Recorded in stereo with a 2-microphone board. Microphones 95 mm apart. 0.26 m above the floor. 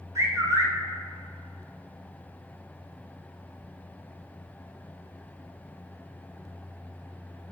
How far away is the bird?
About 0.9 m.